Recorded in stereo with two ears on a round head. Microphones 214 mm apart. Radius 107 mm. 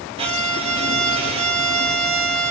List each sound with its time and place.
0.2 s a violin: 25° right (ahead or behind), 0.6 m